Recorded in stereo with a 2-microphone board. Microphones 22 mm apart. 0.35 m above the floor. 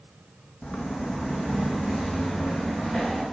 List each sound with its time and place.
0.6 s footsteps: 60° left (ahead or behind), 0.8 m; by 3.2 s 30° left (ahead or behind), 2.5 m